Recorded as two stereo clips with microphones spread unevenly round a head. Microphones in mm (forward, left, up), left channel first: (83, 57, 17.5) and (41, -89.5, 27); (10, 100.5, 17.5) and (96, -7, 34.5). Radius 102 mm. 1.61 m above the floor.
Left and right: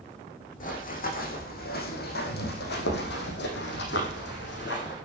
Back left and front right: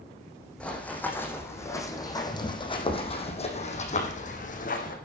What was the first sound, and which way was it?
Running footsteps, 45° left.